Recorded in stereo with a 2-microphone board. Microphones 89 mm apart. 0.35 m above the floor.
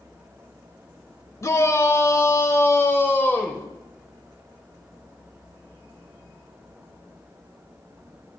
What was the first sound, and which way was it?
A shout, 35° left (ahead or behind).